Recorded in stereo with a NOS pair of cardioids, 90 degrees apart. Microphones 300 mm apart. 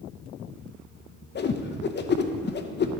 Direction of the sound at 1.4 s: 35° left.